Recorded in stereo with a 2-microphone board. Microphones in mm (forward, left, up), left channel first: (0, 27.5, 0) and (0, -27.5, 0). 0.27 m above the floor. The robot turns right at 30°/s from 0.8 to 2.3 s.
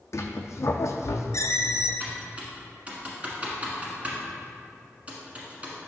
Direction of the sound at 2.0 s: 35° right (ahead or behind).